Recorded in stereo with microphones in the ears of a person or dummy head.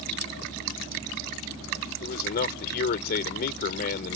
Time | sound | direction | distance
2.0 | a man speaking | 55° left (ahead or behind) | ?